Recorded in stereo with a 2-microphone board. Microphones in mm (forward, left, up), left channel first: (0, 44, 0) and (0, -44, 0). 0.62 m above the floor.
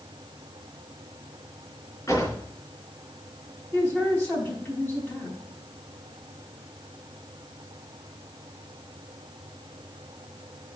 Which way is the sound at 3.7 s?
25° left (ahead or behind).